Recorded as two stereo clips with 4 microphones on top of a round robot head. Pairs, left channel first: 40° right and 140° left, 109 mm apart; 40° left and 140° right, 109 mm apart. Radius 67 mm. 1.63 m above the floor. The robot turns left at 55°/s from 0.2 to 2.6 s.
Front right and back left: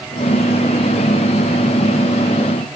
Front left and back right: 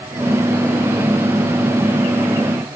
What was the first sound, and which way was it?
Only background noise.